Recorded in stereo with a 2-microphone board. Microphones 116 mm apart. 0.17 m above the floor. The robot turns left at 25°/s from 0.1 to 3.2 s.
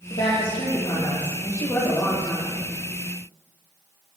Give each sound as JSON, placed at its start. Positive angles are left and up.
{"t": 0.1, "sound": "a woman speaking", "azimuth_deg": 65, "distance_m": 3.5}